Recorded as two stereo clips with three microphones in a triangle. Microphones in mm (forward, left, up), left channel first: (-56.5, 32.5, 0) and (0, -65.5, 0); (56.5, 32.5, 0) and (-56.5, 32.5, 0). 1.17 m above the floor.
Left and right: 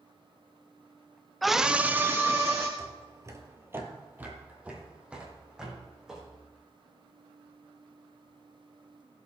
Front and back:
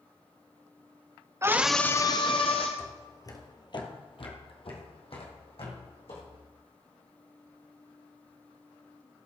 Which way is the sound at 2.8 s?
60° right.